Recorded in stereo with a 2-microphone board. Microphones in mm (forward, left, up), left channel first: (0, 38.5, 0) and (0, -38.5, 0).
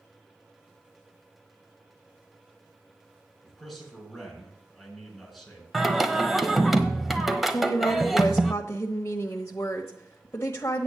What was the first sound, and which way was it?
A man speaking, centre (ahead or behind).